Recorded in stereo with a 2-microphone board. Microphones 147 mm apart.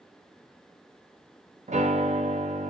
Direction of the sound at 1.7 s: 50° right (ahead or behind).